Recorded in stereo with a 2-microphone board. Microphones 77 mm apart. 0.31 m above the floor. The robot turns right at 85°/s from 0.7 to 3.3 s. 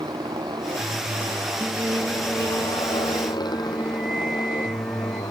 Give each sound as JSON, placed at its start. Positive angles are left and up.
{"t": 0.0, "sound": "a motorcycle", "azimuth_deg": -105}
{"t": 1.6, "sound": "singing", "azimuth_deg": -155}